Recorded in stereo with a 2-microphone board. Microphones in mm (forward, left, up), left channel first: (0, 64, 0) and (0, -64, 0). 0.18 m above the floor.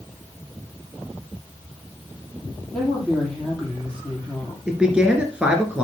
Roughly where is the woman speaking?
Centre.